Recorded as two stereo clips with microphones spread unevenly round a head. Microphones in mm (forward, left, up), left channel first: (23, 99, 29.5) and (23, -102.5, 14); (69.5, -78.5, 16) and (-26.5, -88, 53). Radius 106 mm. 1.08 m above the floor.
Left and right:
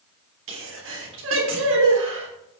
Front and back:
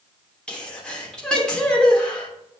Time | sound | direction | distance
0.5 | a sneeze | 75° right | 3 m